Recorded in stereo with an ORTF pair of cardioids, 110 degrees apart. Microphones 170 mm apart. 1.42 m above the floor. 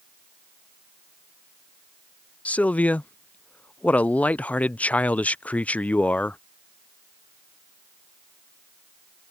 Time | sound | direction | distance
2.5 | a man speaking | 10° left | ?